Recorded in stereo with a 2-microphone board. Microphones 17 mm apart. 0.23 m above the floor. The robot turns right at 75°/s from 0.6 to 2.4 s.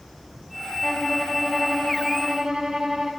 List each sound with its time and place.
0.8 s a violin: 145° left, 0.9 m; by 3.1 s 100° right, 0.9 m